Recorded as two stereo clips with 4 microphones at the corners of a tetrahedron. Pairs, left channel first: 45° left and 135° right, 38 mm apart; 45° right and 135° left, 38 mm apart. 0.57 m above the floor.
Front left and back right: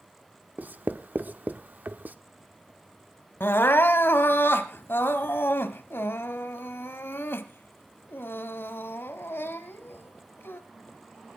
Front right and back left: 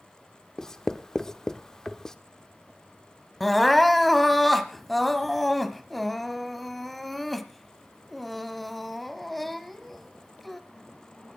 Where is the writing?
115° right, 0.9 m.